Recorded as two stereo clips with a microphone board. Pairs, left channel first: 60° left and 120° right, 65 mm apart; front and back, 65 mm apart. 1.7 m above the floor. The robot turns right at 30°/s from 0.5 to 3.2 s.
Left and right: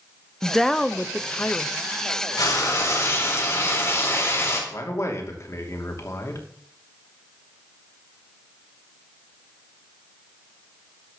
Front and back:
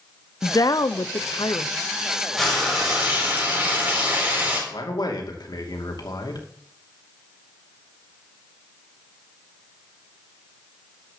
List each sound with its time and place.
0.4 s a woman speaking: 30° right, 0.7 m; by 1.7 s 5° left, 0.7 m
2.4 s frying: 90° left, 4 m; by 4.6 s 115° left, 4 m
4.7 s a man speaking: 15° left, 2.5 m